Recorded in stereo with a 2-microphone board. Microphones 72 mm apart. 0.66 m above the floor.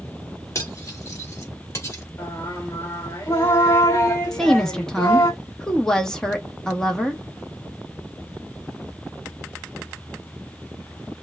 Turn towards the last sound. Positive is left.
turn(degrees=5)  # may be behind; listen again after turning